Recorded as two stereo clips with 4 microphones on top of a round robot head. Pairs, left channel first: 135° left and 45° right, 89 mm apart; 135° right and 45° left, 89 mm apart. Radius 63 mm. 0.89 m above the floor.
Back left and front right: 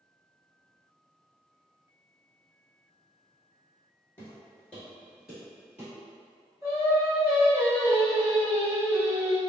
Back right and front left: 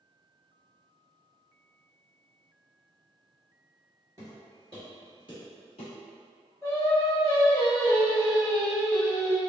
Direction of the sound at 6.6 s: 90° right.